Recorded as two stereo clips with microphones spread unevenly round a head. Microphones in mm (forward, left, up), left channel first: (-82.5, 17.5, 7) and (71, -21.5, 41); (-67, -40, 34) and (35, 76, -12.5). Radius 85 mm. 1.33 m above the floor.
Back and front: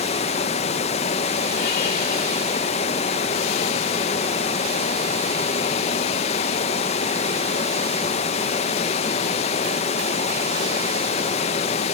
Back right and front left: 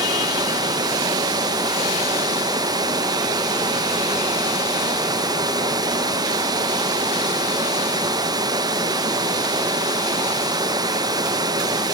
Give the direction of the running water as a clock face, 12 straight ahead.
8 o'clock.